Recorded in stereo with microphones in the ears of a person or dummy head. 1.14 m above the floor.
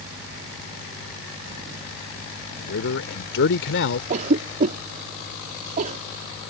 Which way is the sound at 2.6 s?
70° left (ahead or behind).